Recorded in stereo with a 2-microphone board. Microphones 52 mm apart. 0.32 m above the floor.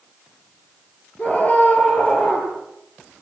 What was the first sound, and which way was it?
A scream, 30° left (ahead or behind).